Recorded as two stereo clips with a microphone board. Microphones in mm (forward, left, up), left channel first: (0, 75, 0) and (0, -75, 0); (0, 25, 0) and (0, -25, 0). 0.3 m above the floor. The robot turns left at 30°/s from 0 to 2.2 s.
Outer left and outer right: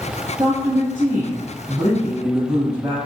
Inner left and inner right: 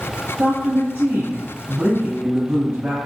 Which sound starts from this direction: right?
A woman speaking, at 0.4 s.